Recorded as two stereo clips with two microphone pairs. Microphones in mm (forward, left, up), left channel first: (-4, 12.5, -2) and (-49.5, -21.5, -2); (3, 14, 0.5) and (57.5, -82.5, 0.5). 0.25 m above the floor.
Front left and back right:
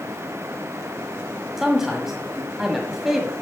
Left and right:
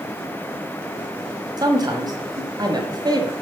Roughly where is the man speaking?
Ahead right.